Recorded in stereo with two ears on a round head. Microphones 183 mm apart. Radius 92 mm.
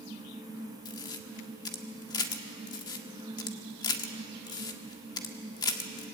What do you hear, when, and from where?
0.8 s a camera shutter: 20° left (ahead or behind), 1.4 m